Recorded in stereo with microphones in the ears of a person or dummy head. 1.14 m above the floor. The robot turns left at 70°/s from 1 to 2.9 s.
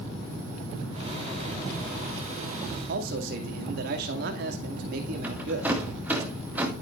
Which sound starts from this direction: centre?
A rattle, at 5.2 s.